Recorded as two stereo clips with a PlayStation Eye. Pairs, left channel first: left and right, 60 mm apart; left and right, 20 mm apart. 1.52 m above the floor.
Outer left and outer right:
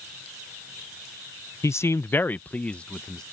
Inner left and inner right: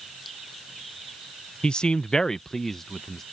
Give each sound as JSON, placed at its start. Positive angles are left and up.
{"t": 1.6, "sound": "a man speaking", "side_deg": 50}